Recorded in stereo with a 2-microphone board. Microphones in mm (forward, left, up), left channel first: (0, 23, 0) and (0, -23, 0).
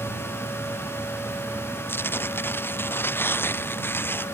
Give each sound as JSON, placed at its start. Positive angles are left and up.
{"t": 1.9, "sound": "tearing paper", "side_deg": 50}